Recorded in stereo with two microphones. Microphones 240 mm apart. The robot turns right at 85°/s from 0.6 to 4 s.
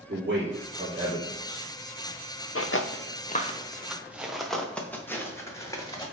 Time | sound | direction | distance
0.1 | a man speaking | 45° right (ahead or behind) | 3 m
2.5 | footsteps | 70° left (ahead or behind) | 0.8 m